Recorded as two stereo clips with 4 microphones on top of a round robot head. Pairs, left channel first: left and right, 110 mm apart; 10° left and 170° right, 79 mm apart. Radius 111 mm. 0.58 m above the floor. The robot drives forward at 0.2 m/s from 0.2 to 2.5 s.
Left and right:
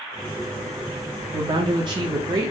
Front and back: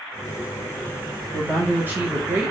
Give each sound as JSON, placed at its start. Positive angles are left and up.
{"t": 1.3, "sound": "a woman speaking", "azimuth_deg": -110, "distance_m": 0.9}